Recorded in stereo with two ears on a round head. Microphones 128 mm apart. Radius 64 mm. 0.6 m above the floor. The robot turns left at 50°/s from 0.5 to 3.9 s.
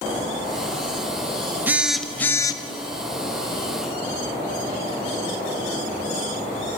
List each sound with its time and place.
1.7 s a phone buzzing: 165° right, 0.6 m; by 2.6 s 150° left, 0.6 m